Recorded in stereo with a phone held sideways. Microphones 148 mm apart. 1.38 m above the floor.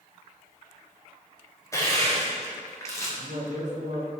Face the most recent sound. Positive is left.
turn(degrees=-55)  # may be behind; listen again after turning